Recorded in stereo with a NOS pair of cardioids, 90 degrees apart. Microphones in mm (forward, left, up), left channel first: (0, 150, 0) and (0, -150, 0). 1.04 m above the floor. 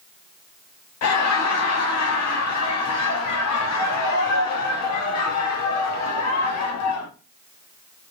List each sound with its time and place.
1.0 s laughter: 65° left, 1.1 m